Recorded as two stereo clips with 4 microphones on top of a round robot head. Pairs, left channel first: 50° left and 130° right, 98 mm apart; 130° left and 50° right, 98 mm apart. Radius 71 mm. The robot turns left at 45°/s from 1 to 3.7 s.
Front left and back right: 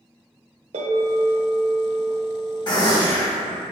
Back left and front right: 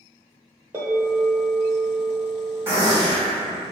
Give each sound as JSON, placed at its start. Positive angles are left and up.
{"t": 0.7, "sound": "a bell", "azimuth_deg": -115, "distance_m": 0.8}
{"t": 2.7, "sound": "a gunshot", "azimuth_deg": 10, "distance_m": 1.6}